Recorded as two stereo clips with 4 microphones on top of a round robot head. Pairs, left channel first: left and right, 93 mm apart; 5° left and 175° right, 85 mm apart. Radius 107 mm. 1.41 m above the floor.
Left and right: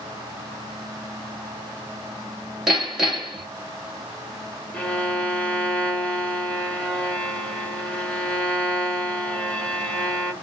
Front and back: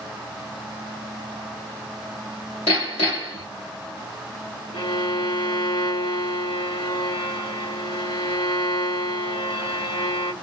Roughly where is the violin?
Ahead.